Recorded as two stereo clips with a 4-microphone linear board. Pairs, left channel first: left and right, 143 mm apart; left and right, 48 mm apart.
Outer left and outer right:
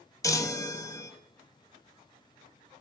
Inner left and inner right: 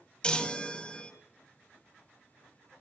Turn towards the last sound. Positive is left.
turn(degrees=20)  # may be behind; listen again after turning